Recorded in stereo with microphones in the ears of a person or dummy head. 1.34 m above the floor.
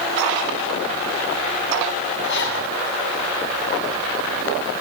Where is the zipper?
60° left (ahead or behind), 6.5 m.